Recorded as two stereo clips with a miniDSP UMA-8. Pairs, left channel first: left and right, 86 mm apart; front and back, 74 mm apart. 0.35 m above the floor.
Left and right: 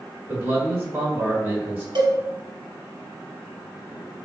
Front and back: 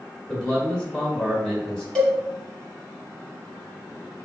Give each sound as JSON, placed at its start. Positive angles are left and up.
{"t": 0.3, "sound": "a man speaking", "azimuth_deg": -60, "distance_m": 1.1}
{"t": 1.9, "sound": "a cowbell", "azimuth_deg": -80, "distance_m": 1.0}